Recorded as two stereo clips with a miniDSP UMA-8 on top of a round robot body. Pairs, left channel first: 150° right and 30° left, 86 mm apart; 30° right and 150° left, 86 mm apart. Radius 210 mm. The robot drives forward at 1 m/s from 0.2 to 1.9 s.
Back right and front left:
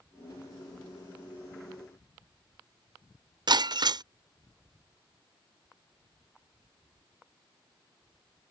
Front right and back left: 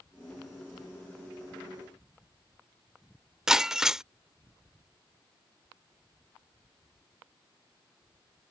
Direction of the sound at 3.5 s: 65° left.